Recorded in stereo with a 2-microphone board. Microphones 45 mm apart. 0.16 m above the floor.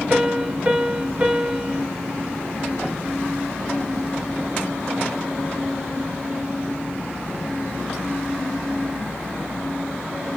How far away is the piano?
About 2 m.